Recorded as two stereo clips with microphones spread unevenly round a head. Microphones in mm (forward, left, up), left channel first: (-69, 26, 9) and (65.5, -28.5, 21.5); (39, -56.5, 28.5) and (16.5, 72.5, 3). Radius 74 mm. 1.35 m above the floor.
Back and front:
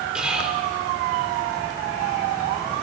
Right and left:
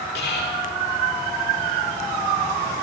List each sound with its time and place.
0.1 s whispering: 105° right, 4.5 m